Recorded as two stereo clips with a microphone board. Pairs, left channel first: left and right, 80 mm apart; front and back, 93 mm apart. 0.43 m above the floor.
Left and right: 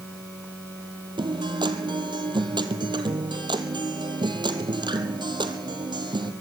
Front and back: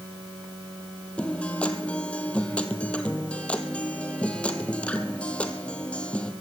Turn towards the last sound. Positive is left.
turn(degrees=-75)